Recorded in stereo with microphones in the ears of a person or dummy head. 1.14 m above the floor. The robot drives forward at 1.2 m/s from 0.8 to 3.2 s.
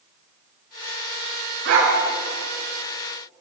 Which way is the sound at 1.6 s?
65° right (ahead or behind).